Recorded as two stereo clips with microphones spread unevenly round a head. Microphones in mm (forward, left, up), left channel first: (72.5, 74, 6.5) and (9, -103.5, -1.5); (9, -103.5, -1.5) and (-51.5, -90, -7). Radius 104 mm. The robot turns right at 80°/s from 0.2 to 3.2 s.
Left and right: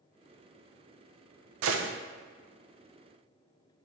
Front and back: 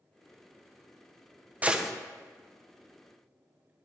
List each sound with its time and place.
1.6 s a gunshot: 120° right, 0.6 m; by 1.9 s 100° right, 0.6 m